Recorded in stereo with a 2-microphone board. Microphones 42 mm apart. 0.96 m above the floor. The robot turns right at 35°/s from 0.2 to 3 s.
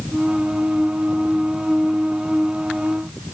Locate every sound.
Only background noise.